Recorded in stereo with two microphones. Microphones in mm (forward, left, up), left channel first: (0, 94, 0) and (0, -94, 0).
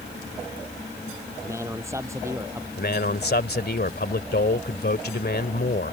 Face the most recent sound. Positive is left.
turn(degrees=65)  # may be behind; listen again after turning